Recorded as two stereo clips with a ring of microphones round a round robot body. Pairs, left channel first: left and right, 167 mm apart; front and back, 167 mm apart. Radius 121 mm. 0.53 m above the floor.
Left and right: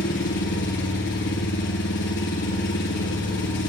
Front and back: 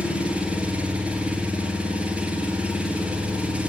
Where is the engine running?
95° left, 6.5 m.